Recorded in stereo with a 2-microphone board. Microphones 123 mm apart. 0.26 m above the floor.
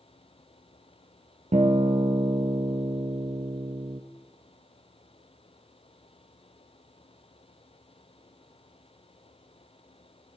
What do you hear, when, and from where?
1.5 s a guitar: 70° right (ahead or behind), 2 m